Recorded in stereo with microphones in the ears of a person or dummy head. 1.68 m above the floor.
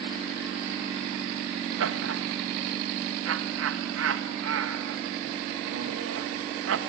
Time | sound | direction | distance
1.8 | laughter | 75° right (ahead or behind) | 2 m